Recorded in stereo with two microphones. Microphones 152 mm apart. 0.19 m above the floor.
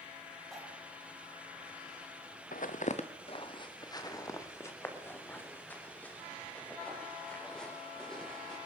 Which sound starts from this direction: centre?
Cutlery clinking, at 0.5 s.